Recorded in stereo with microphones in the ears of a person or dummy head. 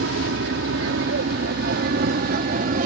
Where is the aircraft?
70° right (ahead or behind); by 2.9 s 45° right (ahead or behind).